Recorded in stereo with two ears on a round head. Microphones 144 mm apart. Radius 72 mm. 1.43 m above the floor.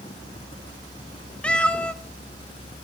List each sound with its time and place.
1.4 s a cat meowing: 5° left (ahead or behind), 0.7 m